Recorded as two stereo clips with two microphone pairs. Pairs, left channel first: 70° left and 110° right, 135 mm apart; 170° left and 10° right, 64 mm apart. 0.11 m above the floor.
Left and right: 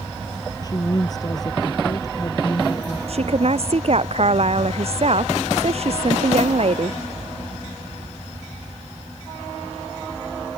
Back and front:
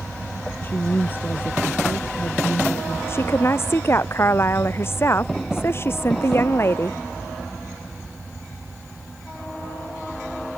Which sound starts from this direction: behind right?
A woman speaking, at 3.1 s.